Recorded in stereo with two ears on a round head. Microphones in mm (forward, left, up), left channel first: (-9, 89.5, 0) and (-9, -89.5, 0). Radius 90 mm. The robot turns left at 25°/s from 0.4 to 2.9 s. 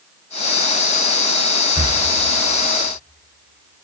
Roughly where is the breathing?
Right.